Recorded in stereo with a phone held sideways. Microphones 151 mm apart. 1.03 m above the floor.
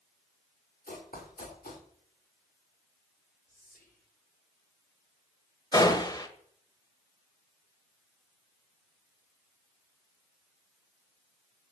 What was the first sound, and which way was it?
Running footsteps, 75° left (ahead or behind).